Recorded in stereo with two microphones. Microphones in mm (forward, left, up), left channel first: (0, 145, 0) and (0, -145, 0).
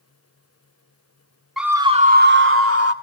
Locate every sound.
1.6 s a scream: centre (ahead or behind), 1.5 m; by 2.9 s 60° right (ahead or behind), 2.5 m